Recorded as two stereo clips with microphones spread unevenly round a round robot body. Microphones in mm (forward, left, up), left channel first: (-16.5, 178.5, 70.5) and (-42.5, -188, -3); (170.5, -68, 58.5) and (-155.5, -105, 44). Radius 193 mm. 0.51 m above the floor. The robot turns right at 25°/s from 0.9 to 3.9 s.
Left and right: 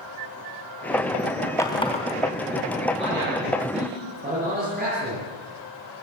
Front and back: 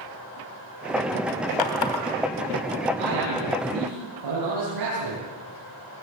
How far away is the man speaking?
About 9.5 m.